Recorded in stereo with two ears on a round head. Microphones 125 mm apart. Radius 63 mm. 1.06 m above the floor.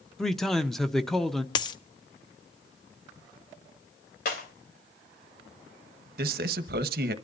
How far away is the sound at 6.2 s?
About 1.1 m.